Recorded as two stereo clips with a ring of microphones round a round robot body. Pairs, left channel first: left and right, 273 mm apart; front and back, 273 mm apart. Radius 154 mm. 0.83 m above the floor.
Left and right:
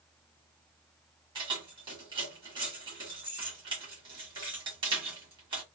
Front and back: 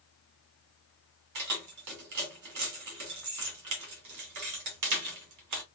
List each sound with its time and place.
1.4 s keys jangling: 165° right, 1.3 m